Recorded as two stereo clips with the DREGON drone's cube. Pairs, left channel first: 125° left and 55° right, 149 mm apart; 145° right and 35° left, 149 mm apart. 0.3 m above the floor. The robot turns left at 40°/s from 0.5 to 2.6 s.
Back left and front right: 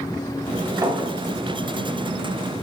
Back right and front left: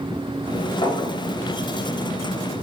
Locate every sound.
0.8 s a clink: 105° right, 1.1 m; by 1.1 s 115° right, 1.1 m